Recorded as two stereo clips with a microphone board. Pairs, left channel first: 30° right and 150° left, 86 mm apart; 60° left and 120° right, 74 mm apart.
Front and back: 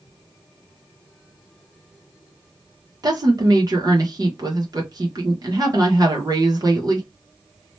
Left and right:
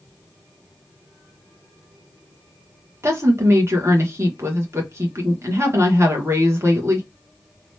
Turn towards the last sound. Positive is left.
turn(degrees=-170)